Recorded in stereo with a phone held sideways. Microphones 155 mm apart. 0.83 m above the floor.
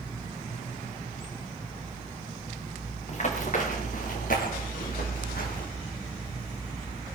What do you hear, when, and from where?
3.1 s running footsteps: 45° left (ahead or behind), 3.5 m; by 5.7 s 75° left (ahead or behind), 6 m